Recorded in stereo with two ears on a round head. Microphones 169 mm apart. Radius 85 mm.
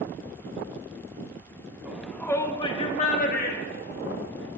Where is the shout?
5° right (ahead or behind), 1.0 m; by 4.5 s 65° left (ahead or behind), 2 m.